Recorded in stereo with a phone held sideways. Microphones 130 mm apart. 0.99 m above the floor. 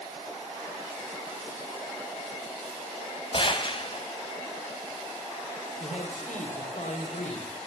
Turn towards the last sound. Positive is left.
turn(degrees=65)  # may be behind; listen again after turning